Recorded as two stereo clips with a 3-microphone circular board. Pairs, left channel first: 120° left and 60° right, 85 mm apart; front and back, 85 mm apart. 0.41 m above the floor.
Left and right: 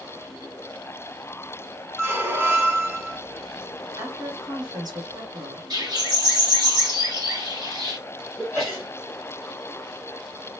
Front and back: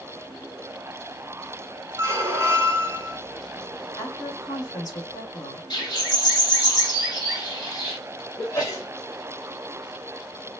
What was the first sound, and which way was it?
A squeak, 120° right.